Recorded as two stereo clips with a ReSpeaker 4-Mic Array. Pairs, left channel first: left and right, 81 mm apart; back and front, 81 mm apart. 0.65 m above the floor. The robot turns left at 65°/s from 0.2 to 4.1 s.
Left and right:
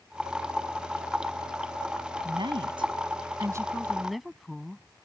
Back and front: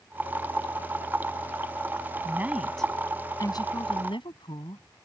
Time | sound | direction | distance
2.2 | a woman speaking | 60° right | ?